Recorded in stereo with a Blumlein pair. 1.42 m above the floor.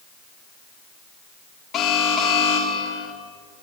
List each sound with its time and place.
1.7 s an alarm: 25° left, 4 m